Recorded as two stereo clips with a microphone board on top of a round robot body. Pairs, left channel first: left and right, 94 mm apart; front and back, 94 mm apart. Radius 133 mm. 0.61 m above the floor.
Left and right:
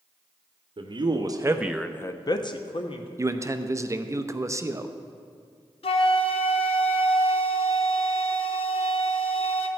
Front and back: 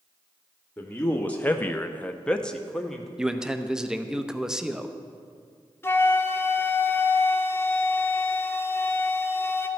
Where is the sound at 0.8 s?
75° right, 1.1 m; by 3.1 s 85° left, 1.3 m.